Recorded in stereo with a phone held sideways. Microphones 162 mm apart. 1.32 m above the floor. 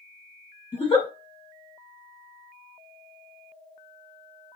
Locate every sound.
0.7 s a giggle: 30° left (ahead or behind), 1.0 m